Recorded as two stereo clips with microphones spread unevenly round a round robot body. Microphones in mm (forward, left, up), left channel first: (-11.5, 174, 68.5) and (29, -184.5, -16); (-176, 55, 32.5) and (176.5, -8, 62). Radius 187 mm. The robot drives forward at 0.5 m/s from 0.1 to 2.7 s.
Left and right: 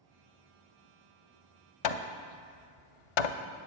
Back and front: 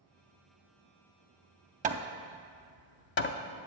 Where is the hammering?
60° left, 0.6 m; by 3.7 s 110° left, 0.5 m.